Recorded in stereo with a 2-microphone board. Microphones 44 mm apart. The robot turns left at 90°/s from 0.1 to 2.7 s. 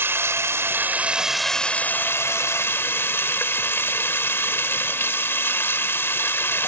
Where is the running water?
65° right; by 6.7 s 60° left.